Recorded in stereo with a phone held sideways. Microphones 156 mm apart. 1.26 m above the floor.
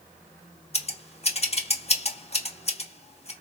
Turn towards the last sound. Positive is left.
turn(degrees=45)  # may be behind; listen again after turning